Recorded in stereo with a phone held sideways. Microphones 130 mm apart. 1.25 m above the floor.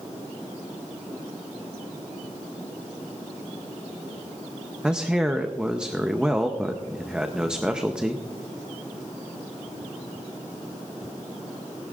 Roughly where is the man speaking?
Centre.